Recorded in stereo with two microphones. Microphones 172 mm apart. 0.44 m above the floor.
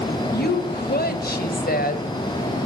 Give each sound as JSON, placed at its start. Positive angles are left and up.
{"t": 0.3, "sound": "a woman speaking", "side_deg": 65, "distance_m": 1.9}